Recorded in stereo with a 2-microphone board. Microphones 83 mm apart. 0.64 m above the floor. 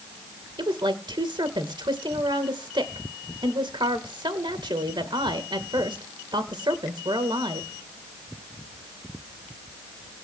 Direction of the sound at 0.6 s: 70° right (ahead or behind).